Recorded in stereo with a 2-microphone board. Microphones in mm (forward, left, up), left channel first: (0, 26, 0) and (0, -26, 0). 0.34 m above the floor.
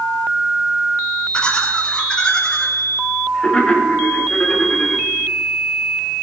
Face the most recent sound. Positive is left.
turn(degrees=25)  # may be behind; listen again after turning